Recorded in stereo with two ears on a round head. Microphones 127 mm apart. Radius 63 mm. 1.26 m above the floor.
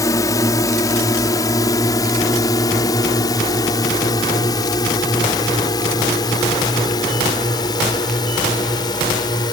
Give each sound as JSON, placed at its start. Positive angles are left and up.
{"t": 0.0, "sound": "a drone", "side_deg": 25}